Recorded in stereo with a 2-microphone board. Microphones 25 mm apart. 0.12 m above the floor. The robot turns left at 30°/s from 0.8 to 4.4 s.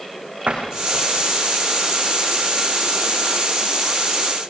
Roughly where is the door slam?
Right.